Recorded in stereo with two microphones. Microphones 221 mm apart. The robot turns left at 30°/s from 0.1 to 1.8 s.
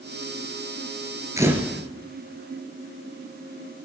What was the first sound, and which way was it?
A camera shutter, 15° right (ahead or behind).